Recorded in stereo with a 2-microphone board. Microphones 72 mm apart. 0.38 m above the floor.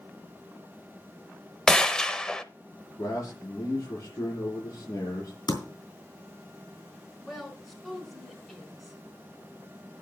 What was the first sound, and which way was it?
A gunshot, 10° left (ahead or behind).